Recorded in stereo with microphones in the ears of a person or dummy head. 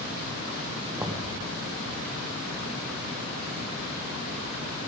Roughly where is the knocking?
Centre.